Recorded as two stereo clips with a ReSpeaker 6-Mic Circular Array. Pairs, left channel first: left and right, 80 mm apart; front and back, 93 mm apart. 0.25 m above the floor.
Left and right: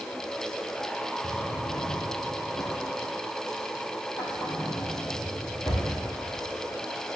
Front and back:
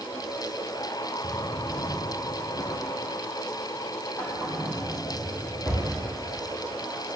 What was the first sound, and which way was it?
A drawer, 60° left.